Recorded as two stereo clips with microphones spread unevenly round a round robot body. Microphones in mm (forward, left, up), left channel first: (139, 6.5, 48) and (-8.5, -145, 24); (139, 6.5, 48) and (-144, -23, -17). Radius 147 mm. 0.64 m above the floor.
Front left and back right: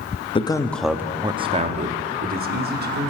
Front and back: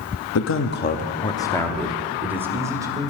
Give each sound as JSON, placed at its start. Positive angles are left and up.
{"t": 0.3, "sound": "a man speaking", "azimuth_deg": -15, "distance_m": 0.9}